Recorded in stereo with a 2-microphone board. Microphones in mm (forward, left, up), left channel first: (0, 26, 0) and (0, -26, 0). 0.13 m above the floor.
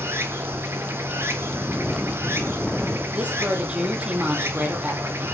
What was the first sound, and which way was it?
Running water, 50° right (ahead or behind).